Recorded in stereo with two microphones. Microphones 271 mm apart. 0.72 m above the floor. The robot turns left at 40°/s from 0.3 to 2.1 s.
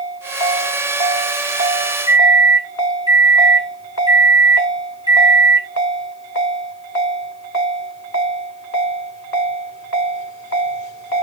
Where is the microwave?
15° right (ahead or behind), 0.5 m.